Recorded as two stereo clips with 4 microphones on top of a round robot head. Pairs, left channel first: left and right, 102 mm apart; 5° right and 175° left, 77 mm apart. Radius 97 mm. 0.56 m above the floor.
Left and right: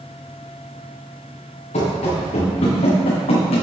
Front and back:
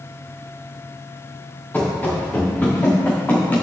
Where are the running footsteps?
65° left, 3.5 m; by 3.6 s 60° left, 2.5 m.